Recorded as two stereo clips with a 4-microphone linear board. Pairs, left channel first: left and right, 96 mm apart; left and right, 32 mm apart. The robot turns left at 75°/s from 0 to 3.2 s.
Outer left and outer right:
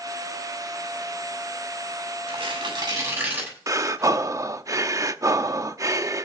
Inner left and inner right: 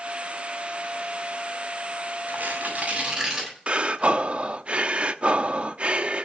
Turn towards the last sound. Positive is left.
turn(degrees=-35)  # may be behind; listen again after turning